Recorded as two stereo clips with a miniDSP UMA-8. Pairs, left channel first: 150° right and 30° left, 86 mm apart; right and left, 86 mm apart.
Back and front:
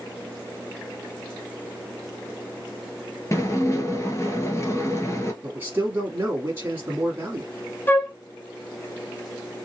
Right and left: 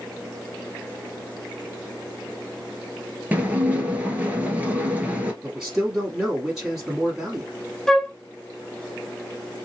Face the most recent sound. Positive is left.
turn(degrees=-165)